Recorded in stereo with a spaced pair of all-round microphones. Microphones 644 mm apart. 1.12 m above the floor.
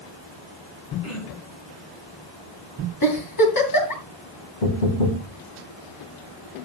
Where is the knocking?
80° left, 1.8 m.